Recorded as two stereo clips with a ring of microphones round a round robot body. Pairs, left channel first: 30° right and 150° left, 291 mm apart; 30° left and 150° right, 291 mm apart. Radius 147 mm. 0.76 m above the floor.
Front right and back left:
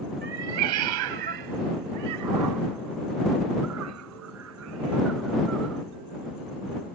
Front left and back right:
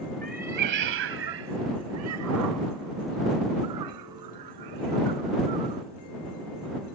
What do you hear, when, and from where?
0.2 s a cat meowing: 150° left; by 5.8 s 165° right